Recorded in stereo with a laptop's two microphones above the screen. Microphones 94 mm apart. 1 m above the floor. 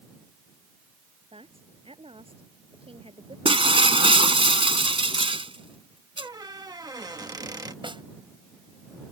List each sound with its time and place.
1.3 s a man speaking: 70° right (ahead or behind)
3.5 s breaking glass: 65° right (ahead or behind)
6.2 s a squeak: 40° right (ahead or behind)
7.8 s a snare drum: 55° right (ahead or behind)